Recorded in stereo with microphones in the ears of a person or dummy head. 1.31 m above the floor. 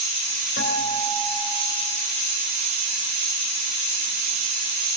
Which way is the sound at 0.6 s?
70° left (ahead or behind).